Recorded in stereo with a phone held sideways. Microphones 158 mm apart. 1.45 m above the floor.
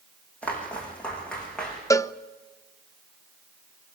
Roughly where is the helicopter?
No helicopter in this recording.